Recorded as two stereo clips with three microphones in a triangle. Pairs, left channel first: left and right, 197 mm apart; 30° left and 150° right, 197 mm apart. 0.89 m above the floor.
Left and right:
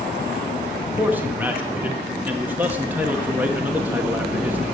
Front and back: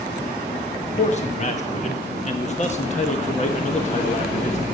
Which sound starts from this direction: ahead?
A man speaking, at 0.8 s.